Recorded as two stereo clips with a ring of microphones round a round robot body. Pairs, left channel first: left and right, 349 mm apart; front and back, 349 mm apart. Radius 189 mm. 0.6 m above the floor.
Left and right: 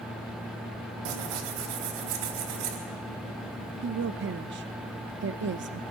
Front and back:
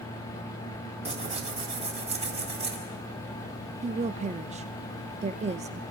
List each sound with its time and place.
1.1 s tearing paper: 105° right, 4 m
3.8 s a woman speaking: 120° right, 0.7 m